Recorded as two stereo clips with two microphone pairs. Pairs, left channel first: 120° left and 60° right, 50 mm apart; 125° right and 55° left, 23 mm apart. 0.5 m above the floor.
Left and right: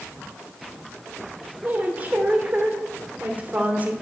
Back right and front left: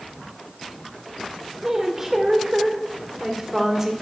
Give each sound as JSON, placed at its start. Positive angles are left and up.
{"t": 1.6, "sound": "a woman speaking", "azimuth_deg": -10, "distance_m": 1.8}